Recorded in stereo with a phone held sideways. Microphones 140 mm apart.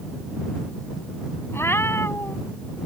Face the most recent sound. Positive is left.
turn(degrees=20)  # may be behind; listen again after turning